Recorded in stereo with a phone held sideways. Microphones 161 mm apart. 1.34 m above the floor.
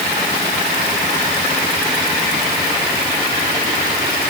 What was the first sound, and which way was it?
Only background noise.